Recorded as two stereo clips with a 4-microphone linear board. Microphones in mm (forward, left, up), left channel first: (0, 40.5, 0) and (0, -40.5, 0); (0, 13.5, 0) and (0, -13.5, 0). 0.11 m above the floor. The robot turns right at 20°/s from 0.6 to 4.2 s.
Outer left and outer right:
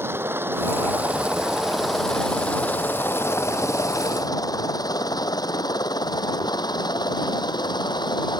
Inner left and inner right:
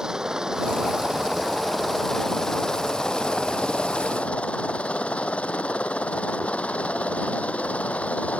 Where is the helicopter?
30° right (ahead or behind); by 8.4 s 60° left (ahead or behind).